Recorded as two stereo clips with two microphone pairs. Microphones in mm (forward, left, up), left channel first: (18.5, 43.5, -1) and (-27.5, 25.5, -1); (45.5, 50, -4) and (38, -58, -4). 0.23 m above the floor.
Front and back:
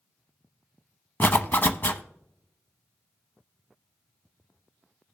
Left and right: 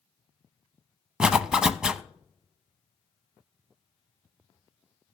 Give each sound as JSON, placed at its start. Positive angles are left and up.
{"t": 1.2, "sound": "a zipper", "azimuth_deg": -10, "distance_m": 0.7}